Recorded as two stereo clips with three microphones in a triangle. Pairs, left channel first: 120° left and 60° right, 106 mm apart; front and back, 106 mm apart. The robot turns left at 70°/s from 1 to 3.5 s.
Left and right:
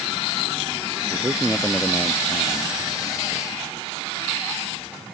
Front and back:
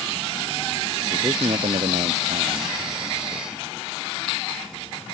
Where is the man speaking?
120° right; by 3.7 s 75° left.